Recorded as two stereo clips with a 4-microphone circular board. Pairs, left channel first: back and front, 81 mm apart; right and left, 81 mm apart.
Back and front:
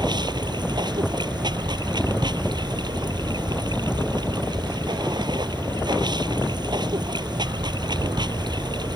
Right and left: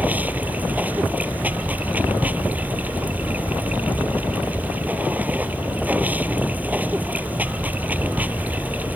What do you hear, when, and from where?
0.0 s running water: 20° left